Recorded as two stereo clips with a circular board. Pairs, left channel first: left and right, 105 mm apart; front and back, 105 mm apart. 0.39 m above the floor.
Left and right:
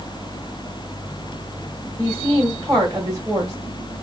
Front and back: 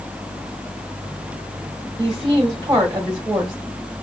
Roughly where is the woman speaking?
Behind right.